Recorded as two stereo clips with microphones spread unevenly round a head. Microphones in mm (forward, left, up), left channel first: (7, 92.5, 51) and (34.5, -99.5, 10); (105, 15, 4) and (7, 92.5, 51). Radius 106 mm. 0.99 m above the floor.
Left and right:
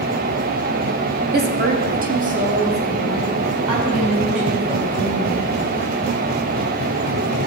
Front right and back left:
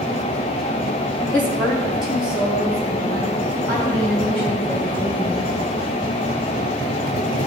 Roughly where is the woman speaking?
Right.